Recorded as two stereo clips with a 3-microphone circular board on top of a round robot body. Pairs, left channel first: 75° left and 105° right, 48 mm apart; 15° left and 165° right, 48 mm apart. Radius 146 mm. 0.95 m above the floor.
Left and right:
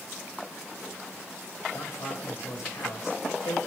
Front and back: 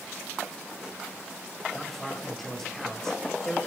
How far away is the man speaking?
About 5.5 m.